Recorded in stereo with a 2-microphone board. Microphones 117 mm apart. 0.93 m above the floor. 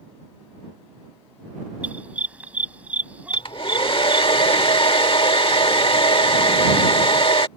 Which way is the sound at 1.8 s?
10° right (ahead or behind).